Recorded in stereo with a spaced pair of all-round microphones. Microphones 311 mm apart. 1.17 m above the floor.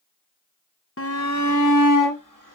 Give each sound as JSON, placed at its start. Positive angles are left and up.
{"t": 1.0, "sound": "a shout", "side_deg": 45, "distance_m": 1.0}